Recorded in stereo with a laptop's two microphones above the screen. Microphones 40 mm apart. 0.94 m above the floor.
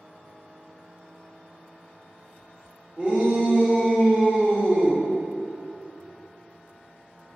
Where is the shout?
30° right (ahead or behind), 0.9 m; by 5.0 s 20° right (ahead or behind), 1.4 m.